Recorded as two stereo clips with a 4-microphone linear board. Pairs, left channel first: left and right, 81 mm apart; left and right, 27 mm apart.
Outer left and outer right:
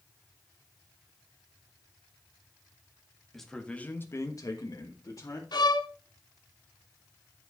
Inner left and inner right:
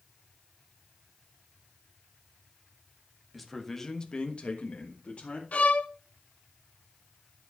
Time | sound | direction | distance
3.3 | a man speaking | centre (ahead or behind) | 1.8 m
5.5 | a violin | 65° left (ahead or behind) | 0.9 m